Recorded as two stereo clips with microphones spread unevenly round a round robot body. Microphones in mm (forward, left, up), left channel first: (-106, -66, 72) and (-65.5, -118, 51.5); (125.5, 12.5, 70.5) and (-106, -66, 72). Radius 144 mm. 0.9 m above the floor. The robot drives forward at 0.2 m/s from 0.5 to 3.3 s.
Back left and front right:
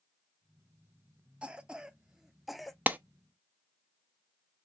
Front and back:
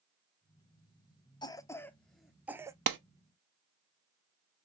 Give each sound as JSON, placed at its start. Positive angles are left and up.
{"t": 1.4, "sound": "a cough", "azimuth_deg": -40, "distance_m": 0.6}
{"t": 2.9, "sound": "a clap", "azimuth_deg": -115, "distance_m": 0.7}